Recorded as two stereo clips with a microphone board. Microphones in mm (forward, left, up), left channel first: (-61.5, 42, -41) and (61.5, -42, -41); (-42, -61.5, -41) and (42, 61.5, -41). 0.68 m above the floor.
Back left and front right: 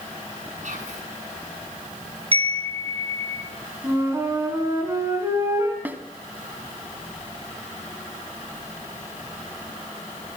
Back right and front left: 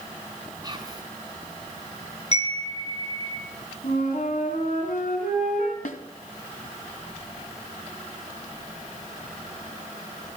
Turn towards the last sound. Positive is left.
turn(degrees=-110)